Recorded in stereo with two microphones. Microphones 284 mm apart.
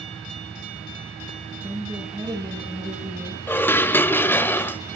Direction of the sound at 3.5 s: 5° left (ahead or behind).